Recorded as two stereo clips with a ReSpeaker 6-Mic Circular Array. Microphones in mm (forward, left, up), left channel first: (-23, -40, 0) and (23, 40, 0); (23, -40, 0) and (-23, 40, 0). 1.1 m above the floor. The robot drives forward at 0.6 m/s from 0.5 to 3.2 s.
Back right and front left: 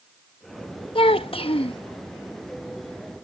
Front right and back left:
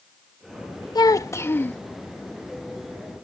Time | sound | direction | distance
0.9 | a child speaking | 105° right | ?